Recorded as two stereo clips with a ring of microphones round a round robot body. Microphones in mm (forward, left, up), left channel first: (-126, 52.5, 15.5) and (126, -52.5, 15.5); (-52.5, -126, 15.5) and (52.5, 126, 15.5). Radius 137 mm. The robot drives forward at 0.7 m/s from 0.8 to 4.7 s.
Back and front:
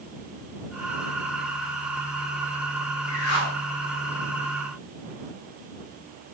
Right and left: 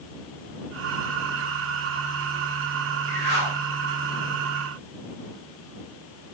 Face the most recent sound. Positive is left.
turn(degrees=140)